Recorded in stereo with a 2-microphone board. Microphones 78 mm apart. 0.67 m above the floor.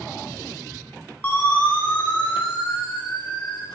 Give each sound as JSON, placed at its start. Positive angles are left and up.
{"t": 1.2, "sound": "a siren", "side_deg": 20, "distance_m": 10.0}